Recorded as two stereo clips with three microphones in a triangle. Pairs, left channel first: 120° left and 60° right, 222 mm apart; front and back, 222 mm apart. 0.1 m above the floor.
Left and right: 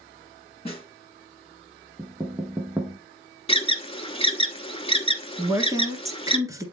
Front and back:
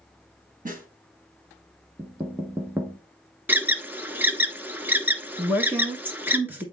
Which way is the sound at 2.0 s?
120° right.